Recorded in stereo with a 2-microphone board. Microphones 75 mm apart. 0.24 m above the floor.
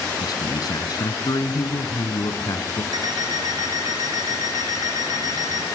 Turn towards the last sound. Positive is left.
turn(degrees=-60)  # may be behind; listen again after turning